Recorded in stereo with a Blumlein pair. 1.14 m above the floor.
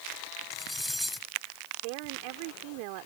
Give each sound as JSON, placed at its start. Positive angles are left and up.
{"t": 0.5, "sound": "cutlery clinking", "azimuth_deg": 0}
{"t": 1.8, "sound": "a woman speaking", "azimuth_deg": -45}